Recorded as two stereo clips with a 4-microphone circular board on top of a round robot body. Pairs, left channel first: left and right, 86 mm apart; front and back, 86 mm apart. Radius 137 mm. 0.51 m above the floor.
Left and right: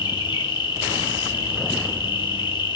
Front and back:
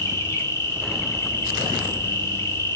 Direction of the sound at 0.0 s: 60° left.